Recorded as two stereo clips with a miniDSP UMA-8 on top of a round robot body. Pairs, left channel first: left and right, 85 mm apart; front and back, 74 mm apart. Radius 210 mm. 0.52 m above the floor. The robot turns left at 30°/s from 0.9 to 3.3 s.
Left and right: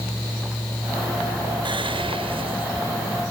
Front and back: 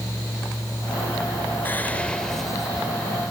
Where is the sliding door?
I don't hear a sliding door.